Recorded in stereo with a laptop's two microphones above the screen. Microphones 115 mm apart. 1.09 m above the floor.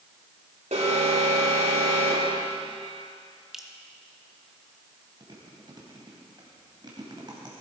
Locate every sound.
0.7 s an alarm: 75° right (ahead or behind), 3 m
3.5 s dripping: 5° right (ahead or behind), 0.8 m
5.2 s chewing: 40° right (ahead or behind), 2.5 m